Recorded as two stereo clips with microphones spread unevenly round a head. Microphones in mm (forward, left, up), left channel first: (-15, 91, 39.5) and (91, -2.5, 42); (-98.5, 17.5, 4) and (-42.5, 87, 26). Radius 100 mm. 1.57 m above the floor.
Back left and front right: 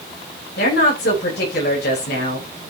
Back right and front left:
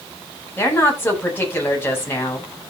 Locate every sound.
0.6 s a woman speaking: 160° left, 9 m